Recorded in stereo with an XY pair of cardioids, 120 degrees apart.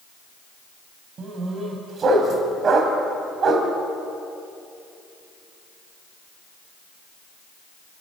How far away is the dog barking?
About 3.5 m.